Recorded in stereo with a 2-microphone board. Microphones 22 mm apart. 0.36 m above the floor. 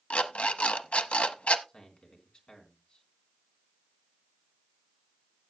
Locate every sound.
0.1 s an alarm clock: 80° left, 0.8 m
1.7 s a man speaking: 50° left (ahead or behind), 3.5 m